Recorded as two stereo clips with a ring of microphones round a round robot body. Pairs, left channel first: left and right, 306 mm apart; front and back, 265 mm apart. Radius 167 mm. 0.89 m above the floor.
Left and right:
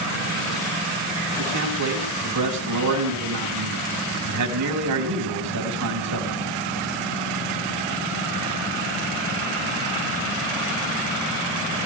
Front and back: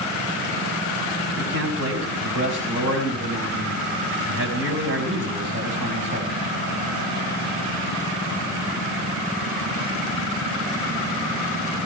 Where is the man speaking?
125° right, 5.5 m.